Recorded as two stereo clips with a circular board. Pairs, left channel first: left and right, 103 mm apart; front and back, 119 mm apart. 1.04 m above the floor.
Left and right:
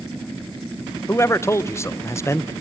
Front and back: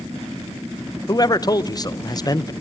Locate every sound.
1.1 s a man speaking: 40° left, 0.8 m